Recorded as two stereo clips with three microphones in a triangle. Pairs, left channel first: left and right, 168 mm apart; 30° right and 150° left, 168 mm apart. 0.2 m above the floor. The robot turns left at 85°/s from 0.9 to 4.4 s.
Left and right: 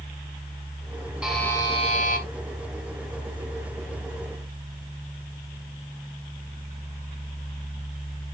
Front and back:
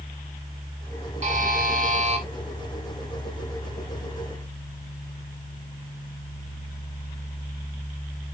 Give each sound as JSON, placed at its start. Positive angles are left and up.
{"t": 1.2, "sound": "a buzzer", "azimuth_deg": -170, "distance_m": 2.5}